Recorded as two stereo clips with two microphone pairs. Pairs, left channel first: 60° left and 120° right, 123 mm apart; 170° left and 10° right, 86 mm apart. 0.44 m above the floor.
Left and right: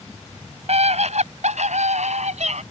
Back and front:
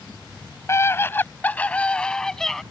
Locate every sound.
0.7 s a scream: 135° right; by 2.6 s 100° right